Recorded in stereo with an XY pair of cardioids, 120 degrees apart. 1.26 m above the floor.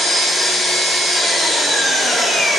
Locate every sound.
0.0 s an engine running: 50° left, 1.1 m